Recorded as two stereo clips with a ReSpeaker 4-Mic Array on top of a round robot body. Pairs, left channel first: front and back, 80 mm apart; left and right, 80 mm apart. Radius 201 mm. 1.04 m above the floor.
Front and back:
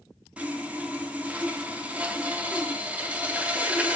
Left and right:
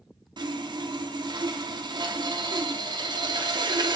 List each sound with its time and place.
0.4 s sawing: 110° right, 0.6 m